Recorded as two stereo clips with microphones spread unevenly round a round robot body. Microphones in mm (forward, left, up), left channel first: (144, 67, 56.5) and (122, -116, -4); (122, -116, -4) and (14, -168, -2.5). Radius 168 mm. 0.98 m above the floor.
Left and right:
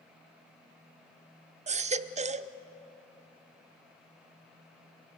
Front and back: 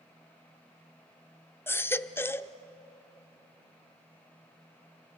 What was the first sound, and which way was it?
A baby crying, 35° right.